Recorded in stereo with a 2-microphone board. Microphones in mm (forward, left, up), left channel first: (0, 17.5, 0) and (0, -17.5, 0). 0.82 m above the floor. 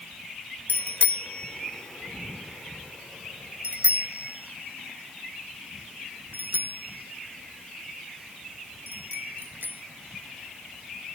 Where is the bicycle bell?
60° left (ahead or behind); by 9.8 s 70° right (ahead or behind).